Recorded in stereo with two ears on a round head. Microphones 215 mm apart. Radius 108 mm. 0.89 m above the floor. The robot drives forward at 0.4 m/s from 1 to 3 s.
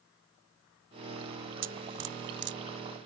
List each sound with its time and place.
1.6 s dripping: 55° right (ahead or behind); by 2.6 s 50° right (ahead or behind)